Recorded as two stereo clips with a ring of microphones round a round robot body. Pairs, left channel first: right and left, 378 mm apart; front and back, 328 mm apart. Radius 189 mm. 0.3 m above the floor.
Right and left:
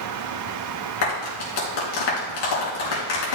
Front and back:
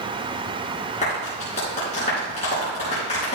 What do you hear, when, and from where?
1.0 s a clap: 70° right, 3.5 m